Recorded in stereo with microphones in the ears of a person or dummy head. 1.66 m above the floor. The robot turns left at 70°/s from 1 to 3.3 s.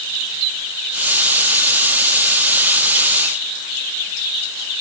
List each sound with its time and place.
Only background noise.